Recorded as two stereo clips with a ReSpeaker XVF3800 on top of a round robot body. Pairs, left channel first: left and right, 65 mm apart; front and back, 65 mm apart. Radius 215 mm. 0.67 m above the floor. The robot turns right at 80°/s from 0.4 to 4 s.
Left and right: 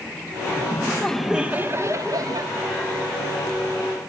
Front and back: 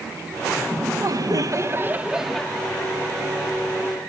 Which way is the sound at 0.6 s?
130° left.